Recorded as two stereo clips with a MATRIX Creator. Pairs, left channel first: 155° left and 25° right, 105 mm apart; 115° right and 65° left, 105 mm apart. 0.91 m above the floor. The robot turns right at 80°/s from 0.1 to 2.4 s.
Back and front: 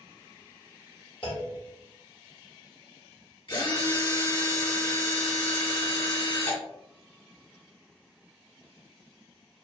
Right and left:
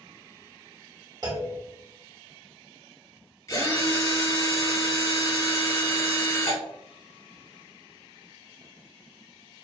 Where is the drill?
165° right, 1.4 m.